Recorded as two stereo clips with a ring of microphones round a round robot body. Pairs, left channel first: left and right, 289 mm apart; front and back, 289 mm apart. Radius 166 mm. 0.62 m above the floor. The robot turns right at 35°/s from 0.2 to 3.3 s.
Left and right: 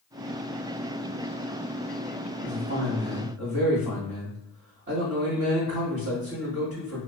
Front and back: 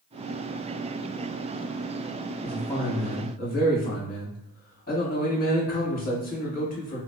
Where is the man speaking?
85° right, 1.9 m; by 7.0 s 55° right, 1.9 m.